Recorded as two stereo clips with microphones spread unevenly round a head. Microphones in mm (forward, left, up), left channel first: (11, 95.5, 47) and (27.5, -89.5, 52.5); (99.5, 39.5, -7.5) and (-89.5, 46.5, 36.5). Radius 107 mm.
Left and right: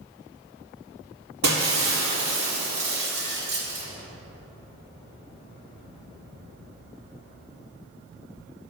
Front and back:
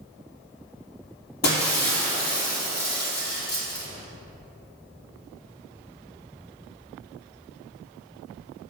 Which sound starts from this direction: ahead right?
Breaking glass, at 1.4 s.